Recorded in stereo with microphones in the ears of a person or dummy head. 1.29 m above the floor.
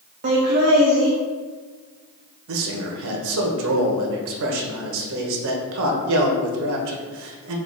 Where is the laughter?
40° right (ahead or behind), 0.6 m.